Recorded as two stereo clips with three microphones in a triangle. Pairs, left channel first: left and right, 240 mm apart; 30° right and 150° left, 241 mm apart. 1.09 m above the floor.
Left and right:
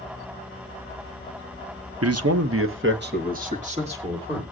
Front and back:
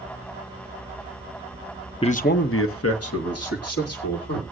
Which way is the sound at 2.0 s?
100° right.